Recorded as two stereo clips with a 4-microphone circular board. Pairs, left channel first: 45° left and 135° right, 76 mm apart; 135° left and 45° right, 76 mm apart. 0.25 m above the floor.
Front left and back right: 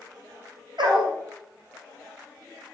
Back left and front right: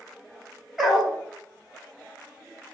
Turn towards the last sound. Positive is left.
turn(degrees=-130)